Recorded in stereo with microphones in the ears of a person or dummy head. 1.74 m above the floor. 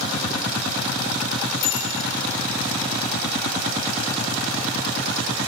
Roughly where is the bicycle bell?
Left.